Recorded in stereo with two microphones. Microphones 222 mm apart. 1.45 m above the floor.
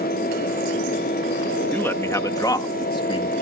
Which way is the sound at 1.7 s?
10° left (ahead or behind).